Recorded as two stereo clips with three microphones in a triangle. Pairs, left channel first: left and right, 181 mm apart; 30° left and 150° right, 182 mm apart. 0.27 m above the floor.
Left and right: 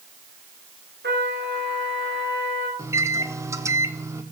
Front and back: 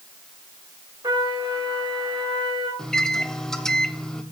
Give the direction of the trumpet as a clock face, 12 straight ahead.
3 o'clock.